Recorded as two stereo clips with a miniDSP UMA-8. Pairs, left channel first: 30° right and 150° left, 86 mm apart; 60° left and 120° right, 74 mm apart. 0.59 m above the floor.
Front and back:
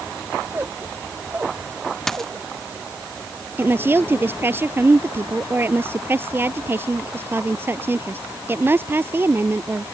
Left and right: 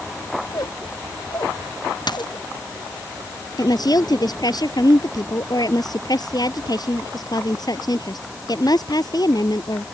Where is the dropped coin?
55° left.